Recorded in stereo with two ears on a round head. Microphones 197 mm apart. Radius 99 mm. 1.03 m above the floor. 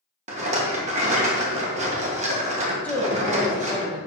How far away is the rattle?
About 1.3 m.